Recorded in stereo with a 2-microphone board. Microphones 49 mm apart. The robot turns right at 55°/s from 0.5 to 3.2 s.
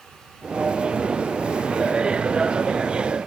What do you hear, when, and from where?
Only background noise.